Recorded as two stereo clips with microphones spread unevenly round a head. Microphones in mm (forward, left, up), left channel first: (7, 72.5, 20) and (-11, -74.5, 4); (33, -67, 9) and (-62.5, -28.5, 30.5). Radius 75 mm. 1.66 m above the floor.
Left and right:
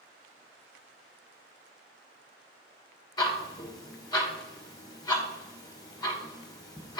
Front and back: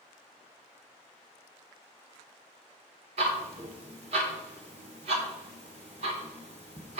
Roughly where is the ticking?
Behind left.